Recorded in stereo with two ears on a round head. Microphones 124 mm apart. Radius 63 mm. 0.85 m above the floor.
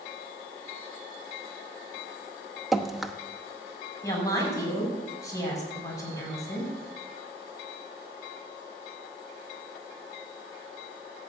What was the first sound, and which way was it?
Dripping, centre (ahead or behind).